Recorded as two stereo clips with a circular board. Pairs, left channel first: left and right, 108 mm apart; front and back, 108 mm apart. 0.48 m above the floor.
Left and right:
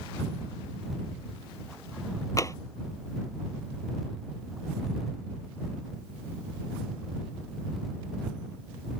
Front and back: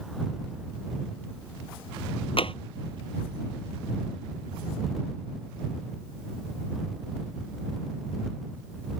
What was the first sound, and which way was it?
Tapping, 30° left.